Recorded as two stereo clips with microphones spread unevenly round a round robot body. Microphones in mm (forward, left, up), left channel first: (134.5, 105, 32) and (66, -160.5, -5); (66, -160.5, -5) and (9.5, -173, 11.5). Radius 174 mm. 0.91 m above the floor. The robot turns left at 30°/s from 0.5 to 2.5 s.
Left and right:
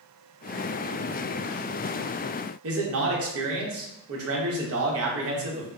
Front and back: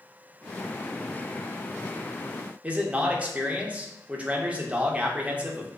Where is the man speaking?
90° right, 1.0 m.